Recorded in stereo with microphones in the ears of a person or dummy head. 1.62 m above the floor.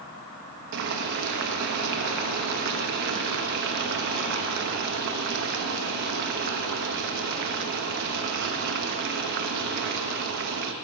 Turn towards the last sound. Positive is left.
turn(degrees=-60)  # may be behind; listen again after turning